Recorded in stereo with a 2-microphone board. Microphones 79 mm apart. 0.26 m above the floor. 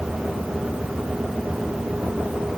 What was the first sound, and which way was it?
Only background noise.